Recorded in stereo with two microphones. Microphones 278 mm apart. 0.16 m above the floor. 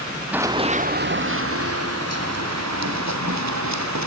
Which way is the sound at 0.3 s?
5° right (ahead or behind).